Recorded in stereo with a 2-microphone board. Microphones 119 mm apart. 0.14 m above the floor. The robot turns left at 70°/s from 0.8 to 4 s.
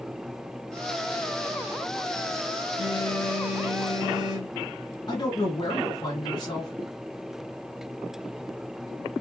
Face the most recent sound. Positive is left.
turn(degrees=40)  # may be behind; listen again after turning